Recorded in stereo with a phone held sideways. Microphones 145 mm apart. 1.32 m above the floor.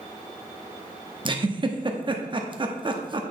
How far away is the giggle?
About 0.8 m.